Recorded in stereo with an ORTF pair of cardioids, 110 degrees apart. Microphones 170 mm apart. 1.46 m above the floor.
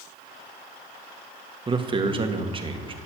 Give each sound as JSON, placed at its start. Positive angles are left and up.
{"t": 1.7, "sound": "a man speaking", "azimuth_deg": -30, "distance_m": 1.8}